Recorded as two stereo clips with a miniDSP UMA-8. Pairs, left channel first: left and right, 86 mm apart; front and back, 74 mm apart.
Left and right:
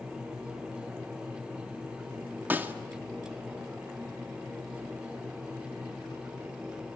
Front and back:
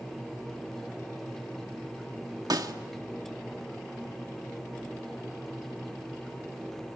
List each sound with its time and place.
2.5 s a snare drum: 155° right, 1.7 m